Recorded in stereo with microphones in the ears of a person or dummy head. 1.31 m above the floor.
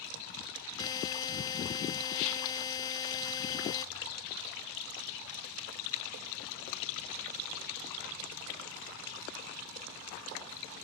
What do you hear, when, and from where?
0.8 s a buzzer: 25° left (ahead or behind), 0.8 m